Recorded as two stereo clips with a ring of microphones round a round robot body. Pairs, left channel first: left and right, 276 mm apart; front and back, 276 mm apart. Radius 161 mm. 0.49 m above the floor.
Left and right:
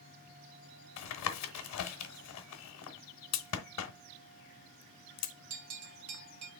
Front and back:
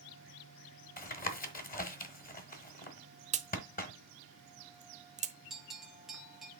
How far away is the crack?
About 0.9 m.